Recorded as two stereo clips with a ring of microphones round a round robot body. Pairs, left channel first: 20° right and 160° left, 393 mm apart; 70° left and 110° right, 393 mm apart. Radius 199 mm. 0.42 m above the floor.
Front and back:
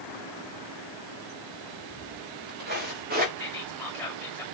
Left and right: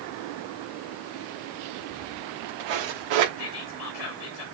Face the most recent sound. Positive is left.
turn(degrees=60)